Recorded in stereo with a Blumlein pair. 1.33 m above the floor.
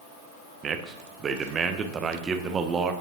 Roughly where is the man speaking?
Ahead.